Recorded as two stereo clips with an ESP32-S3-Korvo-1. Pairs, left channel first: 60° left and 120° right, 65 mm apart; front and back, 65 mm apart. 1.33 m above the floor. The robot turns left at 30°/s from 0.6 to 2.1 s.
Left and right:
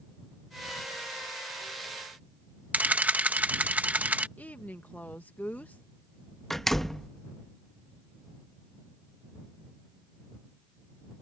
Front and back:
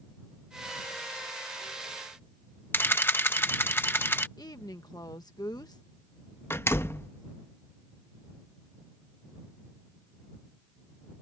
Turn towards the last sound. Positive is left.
turn(degrees=-25)